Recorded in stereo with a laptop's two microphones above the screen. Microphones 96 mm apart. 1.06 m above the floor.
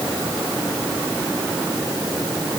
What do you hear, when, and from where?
Only background noise.